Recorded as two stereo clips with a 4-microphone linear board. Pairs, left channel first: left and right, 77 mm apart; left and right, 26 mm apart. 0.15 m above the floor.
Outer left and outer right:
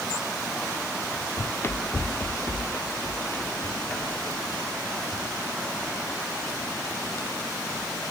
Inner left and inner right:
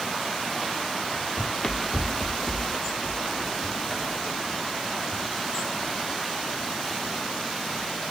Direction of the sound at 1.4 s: 40° left (ahead or behind).